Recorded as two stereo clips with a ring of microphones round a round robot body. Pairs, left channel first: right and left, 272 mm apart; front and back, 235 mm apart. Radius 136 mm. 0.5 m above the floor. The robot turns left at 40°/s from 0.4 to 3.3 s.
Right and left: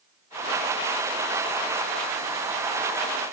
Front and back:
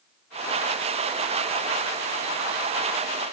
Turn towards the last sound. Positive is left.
No sound to turn to.